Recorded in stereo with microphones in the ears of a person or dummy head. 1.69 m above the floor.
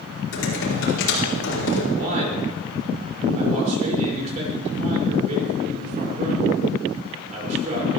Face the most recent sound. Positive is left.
turn(degrees=-40)  # may be behind; listen again after turning